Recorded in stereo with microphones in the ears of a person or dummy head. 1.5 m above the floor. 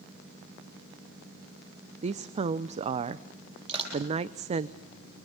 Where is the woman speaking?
35° right (ahead or behind), 0.7 m.